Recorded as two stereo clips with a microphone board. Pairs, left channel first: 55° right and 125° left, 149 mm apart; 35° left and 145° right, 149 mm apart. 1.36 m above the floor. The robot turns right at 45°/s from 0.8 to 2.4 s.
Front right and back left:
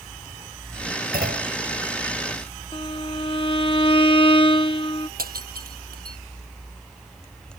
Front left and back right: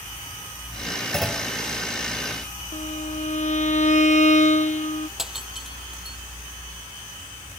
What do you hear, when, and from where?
1.1 s a clunk: 120° left; by 1.6 s 140° left
2.7 s a violin: straight ahead
5.2 s breaking glass: 125° left